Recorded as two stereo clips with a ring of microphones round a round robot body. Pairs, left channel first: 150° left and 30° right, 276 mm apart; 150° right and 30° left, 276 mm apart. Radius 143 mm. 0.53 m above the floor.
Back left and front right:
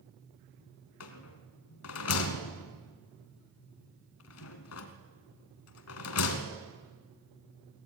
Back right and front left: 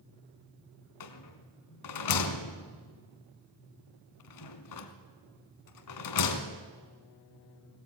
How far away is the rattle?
About 1.6 m.